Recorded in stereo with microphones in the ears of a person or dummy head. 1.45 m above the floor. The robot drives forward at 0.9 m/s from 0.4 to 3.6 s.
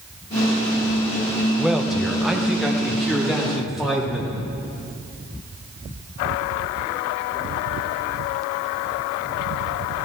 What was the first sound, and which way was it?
A man speaking, 5° right (ahead or behind).